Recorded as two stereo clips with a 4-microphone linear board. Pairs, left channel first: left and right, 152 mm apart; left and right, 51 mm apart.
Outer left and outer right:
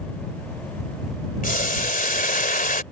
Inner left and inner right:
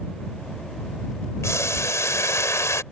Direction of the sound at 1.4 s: 65° left (ahead or behind).